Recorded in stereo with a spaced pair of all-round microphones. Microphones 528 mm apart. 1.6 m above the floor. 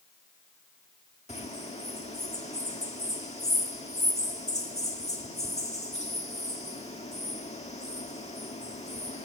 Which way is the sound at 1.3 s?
10° left (ahead or behind).